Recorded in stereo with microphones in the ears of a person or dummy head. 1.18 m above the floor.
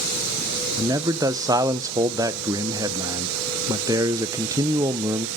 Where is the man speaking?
15° right (ahead or behind), 0.6 m.